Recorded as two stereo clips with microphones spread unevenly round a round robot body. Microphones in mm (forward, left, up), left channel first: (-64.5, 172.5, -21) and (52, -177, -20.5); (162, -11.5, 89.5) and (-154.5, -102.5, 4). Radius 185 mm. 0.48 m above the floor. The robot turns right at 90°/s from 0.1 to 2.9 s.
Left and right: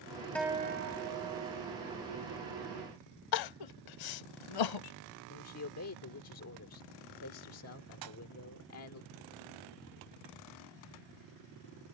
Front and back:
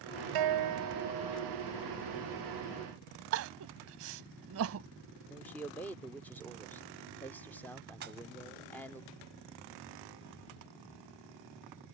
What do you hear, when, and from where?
0.3 s a guitar: 165° right; by 1.7 s 40° right
3.3 s crying: 135° left
5.3 s a man speaking: 120° left
8.0 s a pop: 105° right